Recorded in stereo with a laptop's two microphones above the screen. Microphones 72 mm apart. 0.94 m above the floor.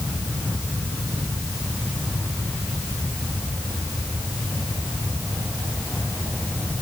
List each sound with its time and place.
Only background noise.